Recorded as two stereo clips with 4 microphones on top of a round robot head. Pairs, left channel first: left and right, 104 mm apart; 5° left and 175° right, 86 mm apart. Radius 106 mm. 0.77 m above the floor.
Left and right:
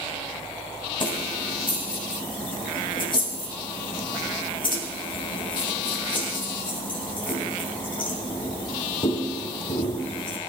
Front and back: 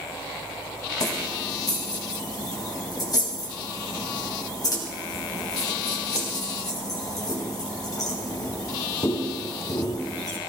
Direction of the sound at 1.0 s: 50° left.